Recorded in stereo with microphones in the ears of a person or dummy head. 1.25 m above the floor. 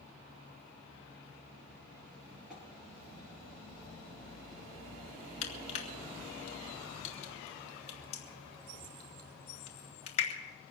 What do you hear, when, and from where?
2.5 s tapping: centre (ahead or behind), 6.5 m
5.4 s crushing: 40° left (ahead or behind), 2.5 m